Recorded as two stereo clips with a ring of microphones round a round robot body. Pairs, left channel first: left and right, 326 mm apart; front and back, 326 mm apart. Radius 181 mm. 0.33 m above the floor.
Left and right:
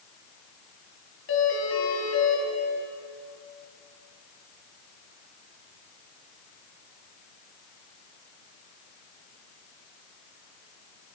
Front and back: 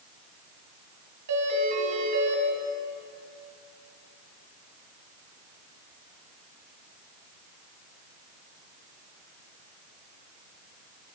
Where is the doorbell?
140° left, 4.5 m.